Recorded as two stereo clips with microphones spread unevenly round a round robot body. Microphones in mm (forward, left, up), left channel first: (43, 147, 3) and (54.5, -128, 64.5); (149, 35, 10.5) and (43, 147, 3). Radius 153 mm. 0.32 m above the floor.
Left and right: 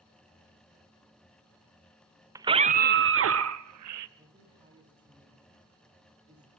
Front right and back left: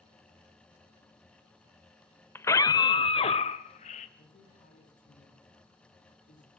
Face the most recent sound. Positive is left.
turn(degrees=-15)